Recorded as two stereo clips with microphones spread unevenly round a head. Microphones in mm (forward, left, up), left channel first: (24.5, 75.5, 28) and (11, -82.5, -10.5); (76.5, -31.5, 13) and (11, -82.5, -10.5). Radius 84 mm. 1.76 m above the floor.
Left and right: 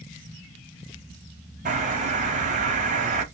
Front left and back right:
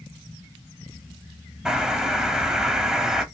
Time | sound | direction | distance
1.6 | a bird | 50° right | 0.7 m